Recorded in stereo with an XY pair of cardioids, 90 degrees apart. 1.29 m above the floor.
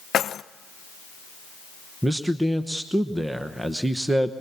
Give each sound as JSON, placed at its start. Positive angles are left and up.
{"t": 0.1, "sound": "keys jangling", "azimuth_deg": 65, "distance_m": 0.6}
{"t": 2.0, "sound": "a man speaking", "azimuth_deg": -15, "distance_m": 1.0}